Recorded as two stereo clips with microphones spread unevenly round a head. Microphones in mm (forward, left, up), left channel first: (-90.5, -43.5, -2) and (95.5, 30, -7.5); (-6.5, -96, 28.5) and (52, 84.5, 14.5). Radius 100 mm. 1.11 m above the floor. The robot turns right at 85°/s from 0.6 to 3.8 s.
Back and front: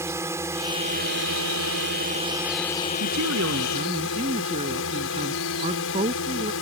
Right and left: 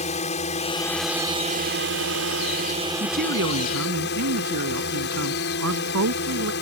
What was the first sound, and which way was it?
A drone, 55° right.